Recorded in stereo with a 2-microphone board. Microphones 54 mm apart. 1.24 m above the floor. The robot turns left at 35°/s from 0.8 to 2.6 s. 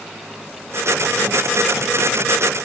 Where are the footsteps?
I don't hear footsteps.